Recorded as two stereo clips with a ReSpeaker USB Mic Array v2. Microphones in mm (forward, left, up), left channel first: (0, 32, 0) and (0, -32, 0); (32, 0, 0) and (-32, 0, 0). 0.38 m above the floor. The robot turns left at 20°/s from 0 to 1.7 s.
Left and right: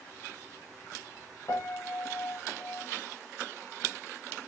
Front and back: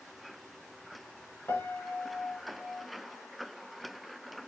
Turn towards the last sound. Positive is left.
turn(degrees=55)